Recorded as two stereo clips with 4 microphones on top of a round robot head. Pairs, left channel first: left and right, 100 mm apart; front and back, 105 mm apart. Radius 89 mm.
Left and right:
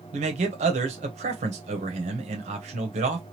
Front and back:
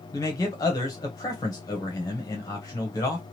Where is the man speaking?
70° right, 0.8 m.